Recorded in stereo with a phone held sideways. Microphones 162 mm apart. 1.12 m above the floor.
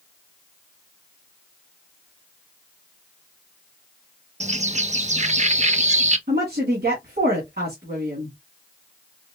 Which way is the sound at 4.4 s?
45° right (ahead or behind).